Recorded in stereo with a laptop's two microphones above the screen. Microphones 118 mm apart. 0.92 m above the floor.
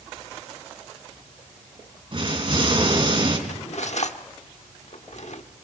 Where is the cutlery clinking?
70° left (ahead or behind), 1.2 m.